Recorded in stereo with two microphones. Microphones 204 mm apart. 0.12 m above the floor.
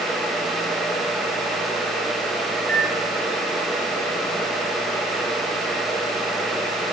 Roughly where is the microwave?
Centre.